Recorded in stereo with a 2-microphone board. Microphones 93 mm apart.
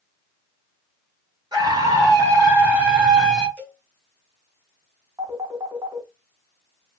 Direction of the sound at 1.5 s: 50° right (ahead or behind).